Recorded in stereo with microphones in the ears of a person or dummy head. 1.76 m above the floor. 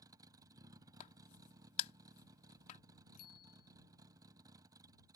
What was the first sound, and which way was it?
A vehicle, 25° right (ahead or behind).